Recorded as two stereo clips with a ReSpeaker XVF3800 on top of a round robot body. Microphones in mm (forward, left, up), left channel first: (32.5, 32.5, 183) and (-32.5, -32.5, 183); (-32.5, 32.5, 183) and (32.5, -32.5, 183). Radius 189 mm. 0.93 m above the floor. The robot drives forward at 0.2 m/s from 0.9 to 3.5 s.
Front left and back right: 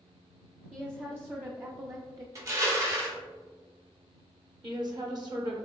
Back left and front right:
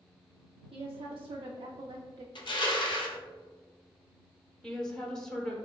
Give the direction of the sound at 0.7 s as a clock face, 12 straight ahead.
2 o'clock.